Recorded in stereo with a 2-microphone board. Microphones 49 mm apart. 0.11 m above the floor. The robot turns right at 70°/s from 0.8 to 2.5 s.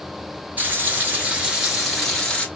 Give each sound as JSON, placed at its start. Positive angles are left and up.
{"t": 0.6, "sound": "frying", "azimuth_deg": -80, "distance_m": 1.4}